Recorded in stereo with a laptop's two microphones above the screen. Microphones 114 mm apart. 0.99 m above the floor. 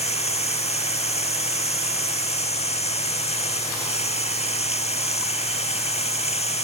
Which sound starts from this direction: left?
Running water, at 0.0 s.